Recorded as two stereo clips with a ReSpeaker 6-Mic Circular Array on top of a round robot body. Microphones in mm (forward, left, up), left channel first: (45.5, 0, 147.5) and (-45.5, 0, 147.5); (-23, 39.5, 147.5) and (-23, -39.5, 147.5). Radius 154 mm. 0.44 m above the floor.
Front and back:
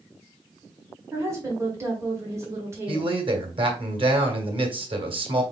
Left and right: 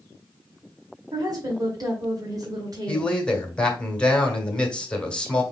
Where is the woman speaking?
125° right, 1.9 m.